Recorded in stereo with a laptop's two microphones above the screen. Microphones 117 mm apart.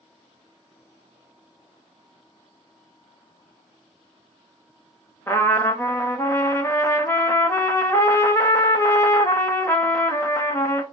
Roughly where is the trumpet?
Left.